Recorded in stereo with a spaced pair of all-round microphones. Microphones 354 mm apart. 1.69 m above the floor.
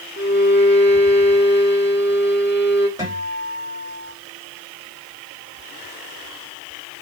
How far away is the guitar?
About 5.5 m.